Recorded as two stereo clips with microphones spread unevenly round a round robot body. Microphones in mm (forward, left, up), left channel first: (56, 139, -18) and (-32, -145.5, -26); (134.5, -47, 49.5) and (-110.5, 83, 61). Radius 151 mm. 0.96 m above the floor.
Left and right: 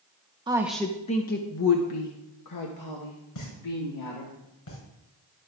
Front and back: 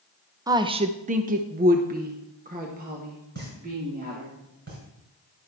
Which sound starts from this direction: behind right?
A woman speaking, at 0.5 s.